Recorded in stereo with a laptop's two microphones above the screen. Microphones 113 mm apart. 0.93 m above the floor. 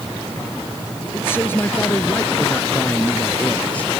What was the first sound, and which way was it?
A man speaking, 20° left (ahead or behind).